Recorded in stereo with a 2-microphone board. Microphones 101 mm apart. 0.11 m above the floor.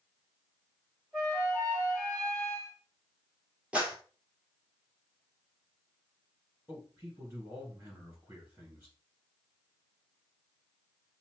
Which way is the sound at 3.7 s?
10° right (ahead or behind).